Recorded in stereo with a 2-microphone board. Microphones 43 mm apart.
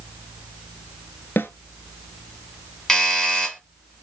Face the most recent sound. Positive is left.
turn(degrees=10)  # may be behind; listen again after turning